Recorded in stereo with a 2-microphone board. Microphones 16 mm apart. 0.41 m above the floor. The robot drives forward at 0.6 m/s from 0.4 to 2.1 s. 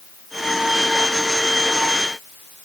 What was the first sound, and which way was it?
Only background noise.